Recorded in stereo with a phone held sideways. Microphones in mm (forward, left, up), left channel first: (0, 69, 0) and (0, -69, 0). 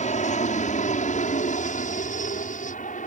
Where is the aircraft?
60° left (ahead or behind); by 3.1 s 70° left (ahead or behind).